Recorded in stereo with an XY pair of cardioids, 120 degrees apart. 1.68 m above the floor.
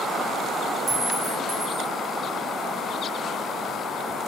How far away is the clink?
About 1.9 m.